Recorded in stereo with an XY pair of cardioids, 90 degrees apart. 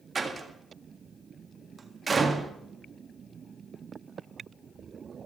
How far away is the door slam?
About 1.7 m.